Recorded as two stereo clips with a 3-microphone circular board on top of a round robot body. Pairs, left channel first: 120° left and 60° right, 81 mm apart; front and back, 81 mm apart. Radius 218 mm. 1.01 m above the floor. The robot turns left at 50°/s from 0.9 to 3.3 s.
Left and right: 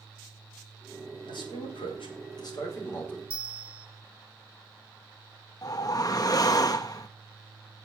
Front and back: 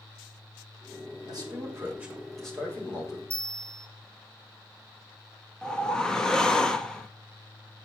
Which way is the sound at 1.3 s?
145° left.